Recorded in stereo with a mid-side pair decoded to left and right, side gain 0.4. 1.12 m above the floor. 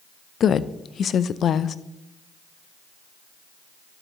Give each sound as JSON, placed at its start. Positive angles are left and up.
{"t": 0.4, "sound": "a woman speaking", "azimuth_deg": 60, "distance_m": 0.5}